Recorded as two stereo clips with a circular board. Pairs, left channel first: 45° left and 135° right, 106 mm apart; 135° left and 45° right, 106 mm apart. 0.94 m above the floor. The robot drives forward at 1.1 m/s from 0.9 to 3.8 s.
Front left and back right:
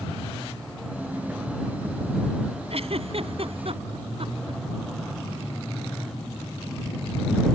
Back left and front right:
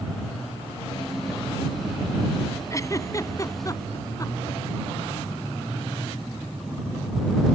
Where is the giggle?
165° right.